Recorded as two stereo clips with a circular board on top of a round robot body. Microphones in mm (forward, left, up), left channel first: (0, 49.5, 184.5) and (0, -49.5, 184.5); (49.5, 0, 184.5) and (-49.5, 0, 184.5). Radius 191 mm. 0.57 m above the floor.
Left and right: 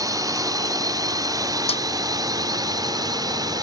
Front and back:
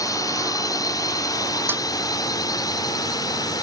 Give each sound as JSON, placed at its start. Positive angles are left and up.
{"t": 0.0, "sound": "a drone", "azimuth_deg": -45}
{"t": 1.7, "sound": "a snare drum", "azimuth_deg": 110}